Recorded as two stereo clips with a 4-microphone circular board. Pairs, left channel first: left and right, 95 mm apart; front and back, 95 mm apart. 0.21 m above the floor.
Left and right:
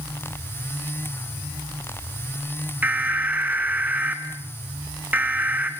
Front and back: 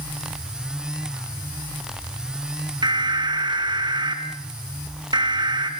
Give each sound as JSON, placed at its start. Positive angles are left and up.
{"t": 2.8, "sound": "an alarm", "azimuth_deg": -160, "distance_m": 2.5}